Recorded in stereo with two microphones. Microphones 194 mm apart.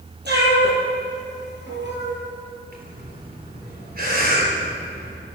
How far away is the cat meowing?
About 5 m.